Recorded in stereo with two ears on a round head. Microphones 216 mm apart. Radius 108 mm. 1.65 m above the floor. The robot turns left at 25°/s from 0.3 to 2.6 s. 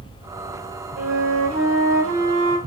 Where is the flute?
65° right, 2.5 m; by 2.6 s 105° right, 2.5 m.